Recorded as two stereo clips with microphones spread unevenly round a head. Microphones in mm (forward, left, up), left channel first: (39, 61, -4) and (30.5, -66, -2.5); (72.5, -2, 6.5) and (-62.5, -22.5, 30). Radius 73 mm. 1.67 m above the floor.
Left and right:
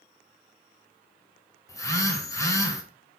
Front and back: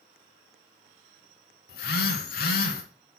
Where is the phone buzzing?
20° left, 1.8 m.